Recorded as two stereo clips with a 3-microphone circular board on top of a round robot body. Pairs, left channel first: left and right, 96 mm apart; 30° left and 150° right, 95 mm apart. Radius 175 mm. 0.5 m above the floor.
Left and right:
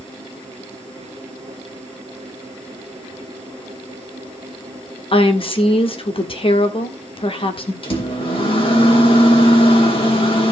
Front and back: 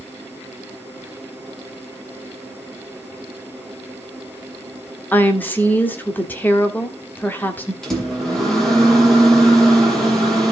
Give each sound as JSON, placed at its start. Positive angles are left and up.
{"t": 5.1, "sound": "a woman speaking", "azimuth_deg": 100, "distance_m": 1.8}
{"t": 7.8, "sound": "a microwave", "azimuth_deg": 115, "distance_m": 3.0}